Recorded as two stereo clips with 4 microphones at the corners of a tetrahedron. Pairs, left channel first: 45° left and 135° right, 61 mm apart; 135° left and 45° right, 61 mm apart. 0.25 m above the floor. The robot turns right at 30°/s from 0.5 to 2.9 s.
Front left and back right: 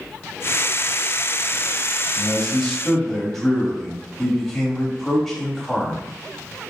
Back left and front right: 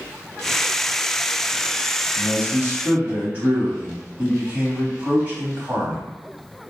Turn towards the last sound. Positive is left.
turn(degrees=-35)